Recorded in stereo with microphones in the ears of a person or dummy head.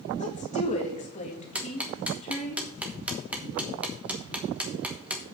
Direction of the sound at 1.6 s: 5° right (ahead or behind).